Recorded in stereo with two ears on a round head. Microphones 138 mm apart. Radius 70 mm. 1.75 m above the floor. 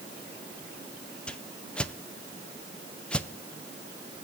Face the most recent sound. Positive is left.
turn(degrees=5)  # may be behind; listen again after turning